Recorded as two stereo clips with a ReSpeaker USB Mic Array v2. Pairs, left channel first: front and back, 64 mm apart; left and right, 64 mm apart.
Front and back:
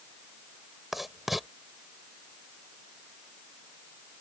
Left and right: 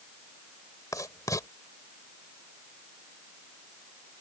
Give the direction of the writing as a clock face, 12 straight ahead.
9 o'clock.